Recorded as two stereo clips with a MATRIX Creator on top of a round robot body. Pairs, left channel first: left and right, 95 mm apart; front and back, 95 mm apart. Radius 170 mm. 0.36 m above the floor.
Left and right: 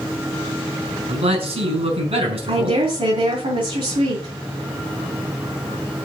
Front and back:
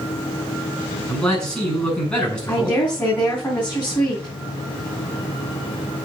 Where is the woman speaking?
70° right, 4 m.